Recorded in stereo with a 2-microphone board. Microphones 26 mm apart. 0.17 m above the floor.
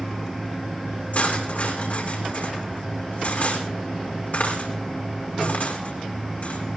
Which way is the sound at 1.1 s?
65° left (ahead or behind).